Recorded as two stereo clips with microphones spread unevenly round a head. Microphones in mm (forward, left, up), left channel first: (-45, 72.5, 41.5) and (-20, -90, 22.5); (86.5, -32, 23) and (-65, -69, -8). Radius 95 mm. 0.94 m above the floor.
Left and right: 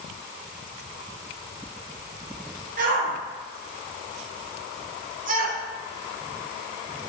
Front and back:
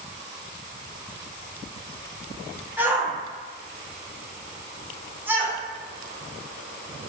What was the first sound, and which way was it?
A shout, 95° right.